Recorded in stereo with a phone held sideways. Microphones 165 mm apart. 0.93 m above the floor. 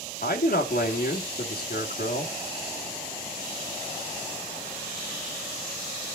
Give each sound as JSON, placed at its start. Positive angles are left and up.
{"t": 0.2, "sound": "a man speaking", "side_deg": 60, "distance_m": 2.0}